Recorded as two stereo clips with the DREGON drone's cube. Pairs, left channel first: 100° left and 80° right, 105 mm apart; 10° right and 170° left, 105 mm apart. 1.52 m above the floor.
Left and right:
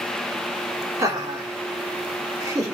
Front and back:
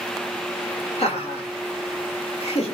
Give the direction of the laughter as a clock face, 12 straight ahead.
1 o'clock.